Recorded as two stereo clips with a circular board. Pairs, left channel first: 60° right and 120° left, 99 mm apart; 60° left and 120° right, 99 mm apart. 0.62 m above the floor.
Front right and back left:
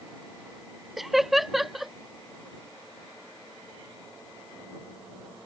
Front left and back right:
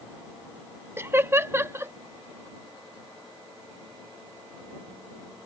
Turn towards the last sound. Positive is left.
turn(degrees=-155)